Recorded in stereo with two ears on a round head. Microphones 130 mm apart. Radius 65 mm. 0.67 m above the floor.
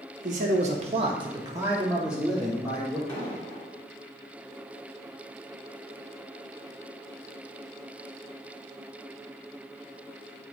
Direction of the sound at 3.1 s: 20° left (ahead or behind).